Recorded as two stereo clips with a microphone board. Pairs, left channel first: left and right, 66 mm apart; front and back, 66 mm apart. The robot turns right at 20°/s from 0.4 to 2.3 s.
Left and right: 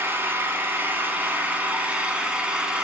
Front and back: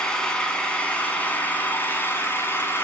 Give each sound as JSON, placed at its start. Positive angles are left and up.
{"t": 0.0, "sound": "an engine running", "azimuth_deg": -65, "distance_m": 1.1}